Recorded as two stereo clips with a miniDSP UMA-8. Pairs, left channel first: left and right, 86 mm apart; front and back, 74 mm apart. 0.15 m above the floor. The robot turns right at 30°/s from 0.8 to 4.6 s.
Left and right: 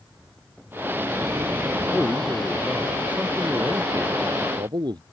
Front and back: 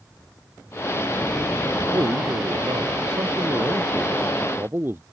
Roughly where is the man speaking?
Behind.